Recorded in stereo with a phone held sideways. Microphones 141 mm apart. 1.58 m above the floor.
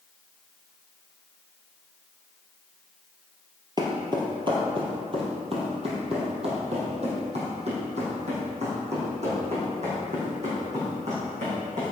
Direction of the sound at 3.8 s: 30° right (ahead or behind).